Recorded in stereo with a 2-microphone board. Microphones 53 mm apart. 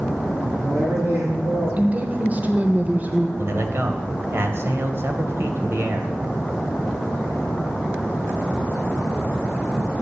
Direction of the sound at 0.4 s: 55° right (ahead or behind).